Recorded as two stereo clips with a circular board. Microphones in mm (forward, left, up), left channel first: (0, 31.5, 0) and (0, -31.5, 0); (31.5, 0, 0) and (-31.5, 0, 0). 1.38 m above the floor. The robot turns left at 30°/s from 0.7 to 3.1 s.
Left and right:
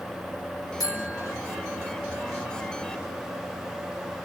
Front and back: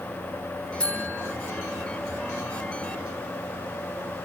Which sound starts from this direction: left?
A buzzer, at 0.8 s.